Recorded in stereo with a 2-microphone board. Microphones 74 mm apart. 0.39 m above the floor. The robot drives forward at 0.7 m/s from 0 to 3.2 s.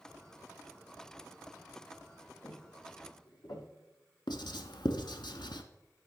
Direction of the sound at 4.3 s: 80° left.